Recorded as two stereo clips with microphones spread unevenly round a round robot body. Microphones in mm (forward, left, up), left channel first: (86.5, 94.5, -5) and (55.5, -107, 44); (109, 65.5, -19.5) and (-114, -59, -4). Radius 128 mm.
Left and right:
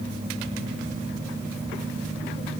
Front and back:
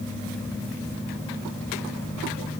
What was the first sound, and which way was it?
Only background noise.